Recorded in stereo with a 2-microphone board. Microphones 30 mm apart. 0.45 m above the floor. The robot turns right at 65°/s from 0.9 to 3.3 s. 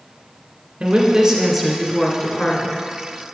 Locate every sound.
0.8 s a woman speaking: 55° right, 1.8 m; by 2.8 s 65° left, 1.8 m